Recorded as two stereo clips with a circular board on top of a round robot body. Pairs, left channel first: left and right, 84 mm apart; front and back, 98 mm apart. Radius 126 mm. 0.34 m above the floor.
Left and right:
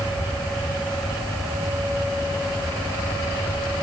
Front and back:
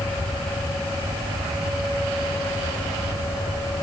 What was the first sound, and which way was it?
Only background noise.